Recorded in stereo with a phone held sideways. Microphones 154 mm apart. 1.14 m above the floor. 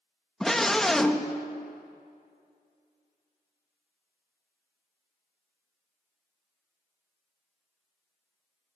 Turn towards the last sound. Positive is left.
turn(degrees=0)  # may be behind; listen again after turning